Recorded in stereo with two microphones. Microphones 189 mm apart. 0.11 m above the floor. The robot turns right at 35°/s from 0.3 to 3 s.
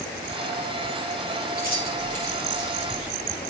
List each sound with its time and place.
1.6 s keys jangling: 55° right (ahead or behind), 7.5 m; by 3.1 s 5° right (ahead or behind), 7.5 m